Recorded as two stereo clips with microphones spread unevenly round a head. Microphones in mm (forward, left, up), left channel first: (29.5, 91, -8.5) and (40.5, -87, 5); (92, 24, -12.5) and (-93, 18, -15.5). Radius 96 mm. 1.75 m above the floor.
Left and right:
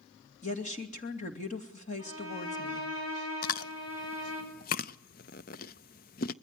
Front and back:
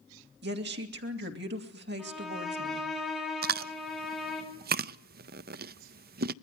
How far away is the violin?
About 7.5 m.